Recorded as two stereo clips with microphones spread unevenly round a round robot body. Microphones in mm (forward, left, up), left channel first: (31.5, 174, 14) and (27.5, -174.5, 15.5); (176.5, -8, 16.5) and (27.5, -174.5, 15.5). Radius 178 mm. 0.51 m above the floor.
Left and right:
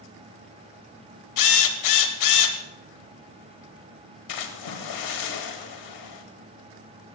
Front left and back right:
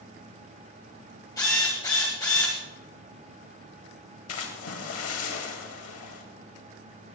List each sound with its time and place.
1.4 s a drill: 125° left, 1.6 m
4.3 s a splash: 65° left, 2.5 m